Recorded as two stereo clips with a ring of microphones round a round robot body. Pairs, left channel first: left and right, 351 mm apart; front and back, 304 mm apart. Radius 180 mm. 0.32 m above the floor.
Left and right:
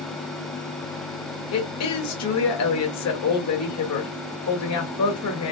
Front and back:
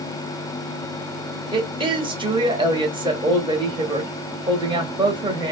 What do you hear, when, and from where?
1.5 s a woman speaking: 110° left, 1.5 m